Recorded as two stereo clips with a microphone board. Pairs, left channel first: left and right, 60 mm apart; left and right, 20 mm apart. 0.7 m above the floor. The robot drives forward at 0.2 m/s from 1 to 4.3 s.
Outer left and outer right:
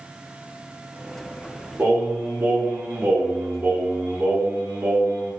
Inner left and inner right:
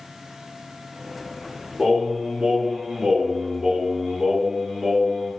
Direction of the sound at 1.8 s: 35° right (ahead or behind).